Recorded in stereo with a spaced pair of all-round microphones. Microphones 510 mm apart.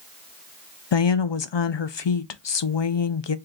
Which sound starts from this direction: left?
A woman speaking, at 0.9 s.